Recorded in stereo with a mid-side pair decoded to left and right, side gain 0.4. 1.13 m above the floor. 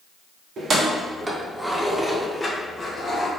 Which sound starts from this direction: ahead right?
Keys jangling, at 0.6 s.